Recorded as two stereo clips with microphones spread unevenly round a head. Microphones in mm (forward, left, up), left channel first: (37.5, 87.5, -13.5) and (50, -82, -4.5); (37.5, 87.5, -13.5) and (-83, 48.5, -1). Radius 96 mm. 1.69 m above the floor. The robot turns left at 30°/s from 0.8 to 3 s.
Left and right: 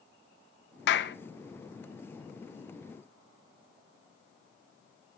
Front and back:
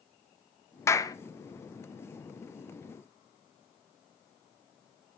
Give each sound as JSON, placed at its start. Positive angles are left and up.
{"t": 0.9, "sound": "a clap", "azimuth_deg": 90, "distance_m": 1.3}